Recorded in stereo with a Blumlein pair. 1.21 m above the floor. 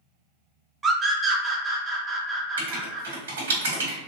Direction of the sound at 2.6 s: 60° right.